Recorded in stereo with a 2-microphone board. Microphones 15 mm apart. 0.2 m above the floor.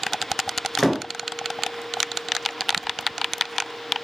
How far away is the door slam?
About 2.5 m.